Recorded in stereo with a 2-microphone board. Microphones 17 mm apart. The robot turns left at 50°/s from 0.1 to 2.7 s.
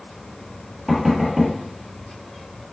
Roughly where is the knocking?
Centre.